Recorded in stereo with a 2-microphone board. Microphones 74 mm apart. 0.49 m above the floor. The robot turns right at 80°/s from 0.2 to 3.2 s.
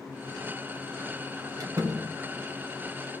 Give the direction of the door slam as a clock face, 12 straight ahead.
2 o'clock.